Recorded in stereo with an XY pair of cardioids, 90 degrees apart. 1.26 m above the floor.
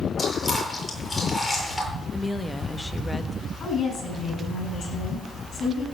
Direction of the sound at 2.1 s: 10° left.